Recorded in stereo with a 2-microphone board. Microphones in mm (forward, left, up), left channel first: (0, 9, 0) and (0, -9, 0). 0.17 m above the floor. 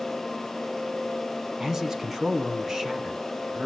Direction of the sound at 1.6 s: 25° right (ahead or behind).